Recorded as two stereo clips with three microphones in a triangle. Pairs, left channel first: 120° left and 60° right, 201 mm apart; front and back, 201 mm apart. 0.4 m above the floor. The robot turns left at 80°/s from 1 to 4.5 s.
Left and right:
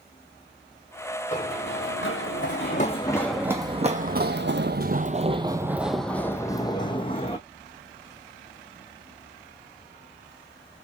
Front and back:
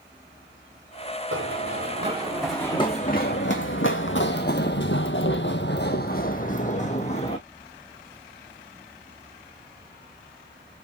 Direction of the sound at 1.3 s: 175° left.